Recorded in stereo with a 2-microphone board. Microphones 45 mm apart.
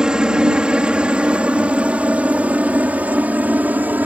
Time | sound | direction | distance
0.0 | a helicopter | 15° right (ahead or behind) | ?